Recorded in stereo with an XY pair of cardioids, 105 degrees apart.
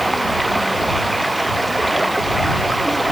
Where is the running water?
10° right.